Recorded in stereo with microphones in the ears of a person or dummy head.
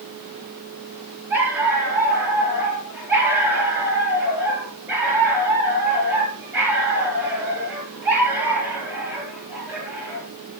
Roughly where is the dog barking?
Centre.